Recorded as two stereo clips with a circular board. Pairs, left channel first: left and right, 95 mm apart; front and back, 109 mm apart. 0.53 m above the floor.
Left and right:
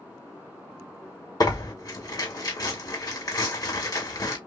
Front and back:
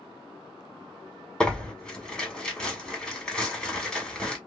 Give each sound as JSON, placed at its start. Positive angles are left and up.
{"t": 1.4, "sound": "tearing paper", "azimuth_deg": 80, "distance_m": 1.3}